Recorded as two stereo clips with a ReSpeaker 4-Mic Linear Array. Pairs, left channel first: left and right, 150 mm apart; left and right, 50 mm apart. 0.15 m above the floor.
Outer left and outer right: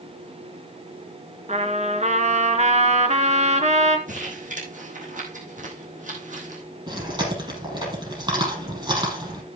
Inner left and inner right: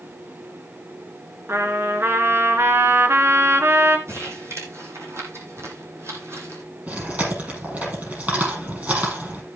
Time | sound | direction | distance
1.5 | a trumpet | 50° right (ahead or behind) | 1.4 m
4.1 | crumpling | 60° right (ahead or behind) | 3.5 m
6.9 | chewing | 30° right (ahead or behind) | 6 m